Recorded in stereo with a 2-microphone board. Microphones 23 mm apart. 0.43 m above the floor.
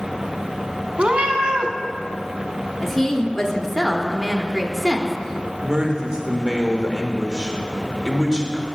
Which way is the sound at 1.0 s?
55° right (ahead or behind).